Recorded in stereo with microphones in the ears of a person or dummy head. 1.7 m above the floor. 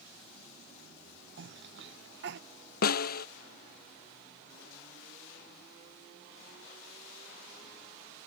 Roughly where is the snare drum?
Left.